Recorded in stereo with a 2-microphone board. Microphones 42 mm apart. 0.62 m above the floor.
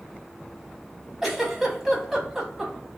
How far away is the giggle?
About 0.8 m.